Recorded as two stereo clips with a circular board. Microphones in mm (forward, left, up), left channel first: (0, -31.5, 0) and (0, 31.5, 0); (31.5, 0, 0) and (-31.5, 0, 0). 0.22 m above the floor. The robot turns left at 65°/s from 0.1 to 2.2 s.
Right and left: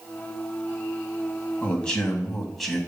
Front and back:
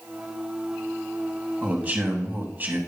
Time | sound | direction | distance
1.6 | a man speaking | 135° right | 1.8 m